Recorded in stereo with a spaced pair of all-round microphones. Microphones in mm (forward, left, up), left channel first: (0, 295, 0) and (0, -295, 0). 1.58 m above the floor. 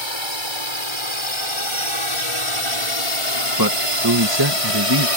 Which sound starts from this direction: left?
A drone, at 0.0 s.